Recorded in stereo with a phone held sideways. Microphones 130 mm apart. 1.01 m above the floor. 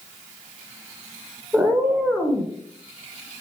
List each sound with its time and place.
1.5 s a cat meowing: 10° right (ahead or behind), 0.7 m; by 2.5 s 10° left (ahead or behind), 1.0 m